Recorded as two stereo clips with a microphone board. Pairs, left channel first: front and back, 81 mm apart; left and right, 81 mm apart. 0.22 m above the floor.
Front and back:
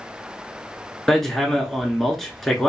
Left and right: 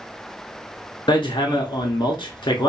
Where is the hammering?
85° left, 0.7 m.